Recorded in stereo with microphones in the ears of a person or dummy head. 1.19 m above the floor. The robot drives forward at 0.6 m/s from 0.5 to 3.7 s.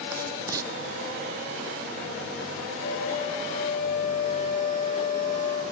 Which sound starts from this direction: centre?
Writing, at 0.1 s.